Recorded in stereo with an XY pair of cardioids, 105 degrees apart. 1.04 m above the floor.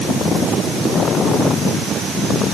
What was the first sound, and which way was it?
Only background noise.